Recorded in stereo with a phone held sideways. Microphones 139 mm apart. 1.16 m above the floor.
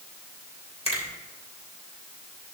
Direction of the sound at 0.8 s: 45° left (ahead or behind).